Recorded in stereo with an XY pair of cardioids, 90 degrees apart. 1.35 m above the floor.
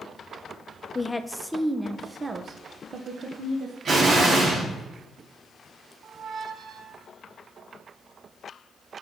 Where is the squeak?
55° right, 0.8 m.